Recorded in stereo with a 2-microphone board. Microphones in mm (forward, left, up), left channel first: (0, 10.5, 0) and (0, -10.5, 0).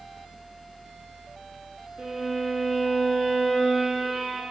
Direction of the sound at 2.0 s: 45° right (ahead or behind).